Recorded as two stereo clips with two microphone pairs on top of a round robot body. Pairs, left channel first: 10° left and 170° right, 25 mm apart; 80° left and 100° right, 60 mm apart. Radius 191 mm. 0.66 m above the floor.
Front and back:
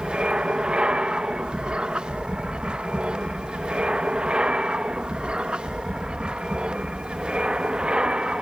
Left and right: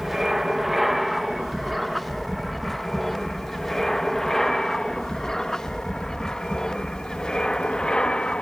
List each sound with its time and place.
0.0 s an aircraft: straight behind; by 8.4 s 150° left